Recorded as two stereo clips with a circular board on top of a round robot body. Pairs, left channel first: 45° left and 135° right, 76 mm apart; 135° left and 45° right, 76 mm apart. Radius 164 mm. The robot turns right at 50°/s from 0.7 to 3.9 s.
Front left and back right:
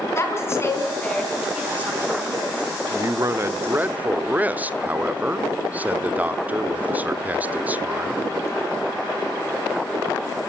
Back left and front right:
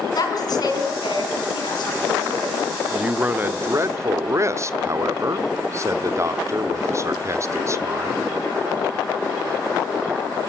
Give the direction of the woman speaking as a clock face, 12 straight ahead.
9 o'clock.